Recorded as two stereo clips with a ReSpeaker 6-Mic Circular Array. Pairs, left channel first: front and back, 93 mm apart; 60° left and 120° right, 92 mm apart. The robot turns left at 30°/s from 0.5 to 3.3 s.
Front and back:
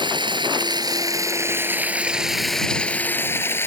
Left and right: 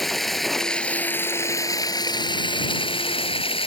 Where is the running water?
150° left; by 3.7 s 65° left.